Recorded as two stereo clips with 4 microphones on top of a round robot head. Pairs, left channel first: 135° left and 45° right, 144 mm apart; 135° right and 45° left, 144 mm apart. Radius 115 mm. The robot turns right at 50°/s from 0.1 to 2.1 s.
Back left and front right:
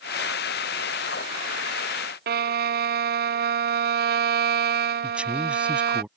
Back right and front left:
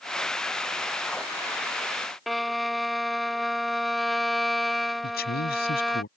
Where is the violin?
45° right.